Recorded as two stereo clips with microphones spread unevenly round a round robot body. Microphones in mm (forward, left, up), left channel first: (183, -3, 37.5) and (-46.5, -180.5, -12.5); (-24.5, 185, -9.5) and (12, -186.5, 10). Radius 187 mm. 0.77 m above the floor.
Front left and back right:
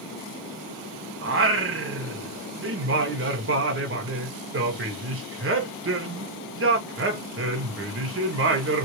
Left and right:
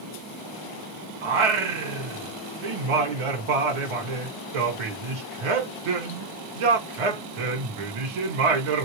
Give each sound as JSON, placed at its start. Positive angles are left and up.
{"t": 1.2, "sound": "singing", "azimuth_deg": -95, "distance_m": 1.1}